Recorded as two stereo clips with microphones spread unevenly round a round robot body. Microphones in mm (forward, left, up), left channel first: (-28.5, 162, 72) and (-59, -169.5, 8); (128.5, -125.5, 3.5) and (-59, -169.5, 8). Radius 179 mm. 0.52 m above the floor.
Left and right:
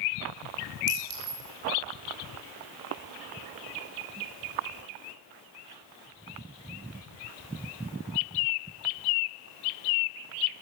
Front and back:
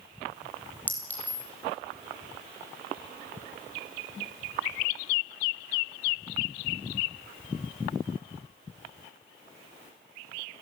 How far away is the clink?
About 8.5 m.